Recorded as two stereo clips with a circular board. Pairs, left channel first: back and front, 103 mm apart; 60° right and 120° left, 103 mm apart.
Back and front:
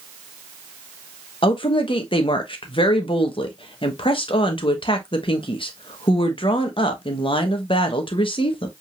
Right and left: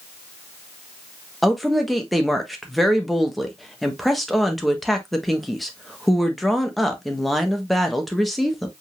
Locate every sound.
1.4 s a woman speaking: 150° right, 1.3 m